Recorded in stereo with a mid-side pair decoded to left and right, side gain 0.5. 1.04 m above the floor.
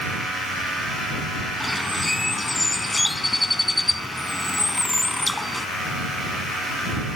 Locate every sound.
1.6 s a bird: 15° left